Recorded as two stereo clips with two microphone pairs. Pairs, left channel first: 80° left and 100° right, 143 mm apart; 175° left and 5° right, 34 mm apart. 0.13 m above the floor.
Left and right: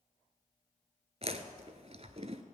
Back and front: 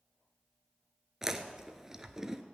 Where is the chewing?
75° right, 0.9 m.